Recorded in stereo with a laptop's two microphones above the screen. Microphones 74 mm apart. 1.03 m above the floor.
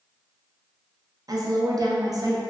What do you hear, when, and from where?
1.3 s a woman speaking: 50° right (ahead or behind), 0.6 m